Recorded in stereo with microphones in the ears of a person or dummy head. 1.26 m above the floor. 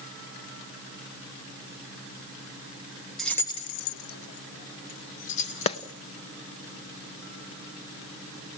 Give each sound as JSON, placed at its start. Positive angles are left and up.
{"t": 3.2, "sound": "keys jangling", "side_deg": 5, "distance_m": 1.0}
{"t": 5.7, "sound": "a clap", "side_deg": 35, "distance_m": 0.7}